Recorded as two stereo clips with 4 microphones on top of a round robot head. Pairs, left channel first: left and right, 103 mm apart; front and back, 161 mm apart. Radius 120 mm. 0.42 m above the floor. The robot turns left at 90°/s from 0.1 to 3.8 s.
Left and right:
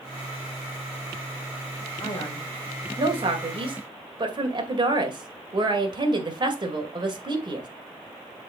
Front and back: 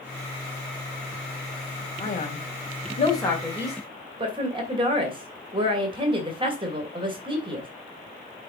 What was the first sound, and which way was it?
A man speaking, 40° left.